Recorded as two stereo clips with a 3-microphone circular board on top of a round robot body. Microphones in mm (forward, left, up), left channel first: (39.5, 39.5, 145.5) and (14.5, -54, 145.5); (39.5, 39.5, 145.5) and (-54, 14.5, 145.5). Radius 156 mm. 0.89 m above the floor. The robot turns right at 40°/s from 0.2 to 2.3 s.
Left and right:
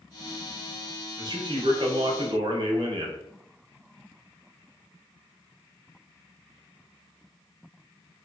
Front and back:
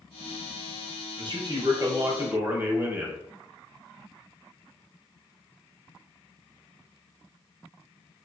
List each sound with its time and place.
1.2 s a man speaking: 145° right, 1.1 m; by 3.2 s 100° right, 1.1 m